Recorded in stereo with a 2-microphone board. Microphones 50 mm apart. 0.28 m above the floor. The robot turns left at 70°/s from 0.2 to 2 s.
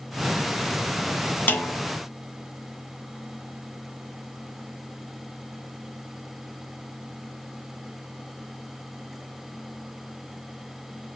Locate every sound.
1.5 s a snare drum: 35° left (ahead or behind), 1.1 m